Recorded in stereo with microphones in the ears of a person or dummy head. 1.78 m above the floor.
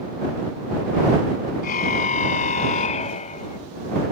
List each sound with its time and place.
1.6 s a car horn: 45° left (ahead or behind); by 3.6 s 35° left (ahead or behind)